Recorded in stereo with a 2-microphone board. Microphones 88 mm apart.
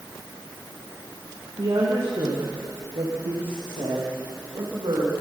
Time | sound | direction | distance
1.6 | a woman speaking | 60° right (ahead or behind) | 6 m